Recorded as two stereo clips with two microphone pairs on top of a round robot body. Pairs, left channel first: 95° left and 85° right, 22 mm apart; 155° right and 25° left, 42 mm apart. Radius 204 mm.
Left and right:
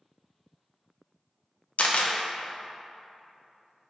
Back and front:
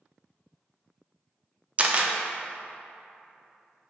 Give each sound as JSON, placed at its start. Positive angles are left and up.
{"t": 1.8, "sound": "a camera shutter", "azimuth_deg": 85, "distance_m": 0.5}